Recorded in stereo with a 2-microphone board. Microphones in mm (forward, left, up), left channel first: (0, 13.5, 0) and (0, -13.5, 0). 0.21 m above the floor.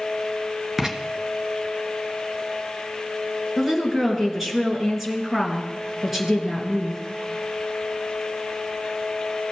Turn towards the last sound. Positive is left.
turn(degrees=-5)  # may be behind; listen again after turning